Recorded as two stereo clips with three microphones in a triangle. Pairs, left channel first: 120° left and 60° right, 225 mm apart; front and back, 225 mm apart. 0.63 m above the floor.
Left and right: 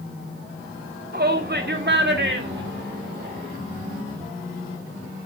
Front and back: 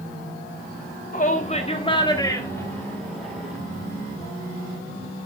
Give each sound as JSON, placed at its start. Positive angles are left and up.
{"t": 1.1, "sound": "a shout", "azimuth_deg": -40, "distance_m": 1.6}